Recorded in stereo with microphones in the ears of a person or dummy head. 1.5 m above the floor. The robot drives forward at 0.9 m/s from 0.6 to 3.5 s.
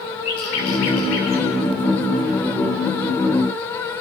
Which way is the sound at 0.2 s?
70° left (ahead or behind).